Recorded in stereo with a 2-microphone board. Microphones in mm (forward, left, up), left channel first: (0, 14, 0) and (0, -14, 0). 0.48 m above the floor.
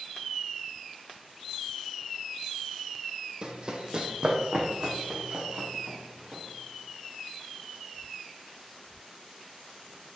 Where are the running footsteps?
35° right (ahead or behind), 1.2 m; by 6.4 s 40° right (ahead or behind), 3.5 m.